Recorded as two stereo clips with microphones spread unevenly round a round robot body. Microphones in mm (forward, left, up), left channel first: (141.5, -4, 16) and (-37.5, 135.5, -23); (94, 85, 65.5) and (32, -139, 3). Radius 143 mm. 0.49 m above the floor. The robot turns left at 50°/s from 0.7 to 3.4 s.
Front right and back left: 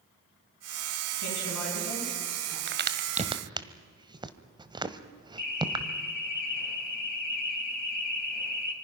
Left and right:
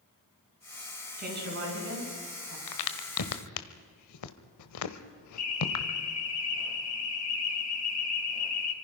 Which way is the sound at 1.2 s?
55° right.